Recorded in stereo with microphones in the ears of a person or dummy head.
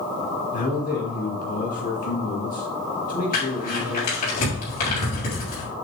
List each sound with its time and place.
0.5 s a man speaking: 50° left (ahead or behind), 2.5 m
3.3 s crumpling: 50° left (ahead or behind), 4 m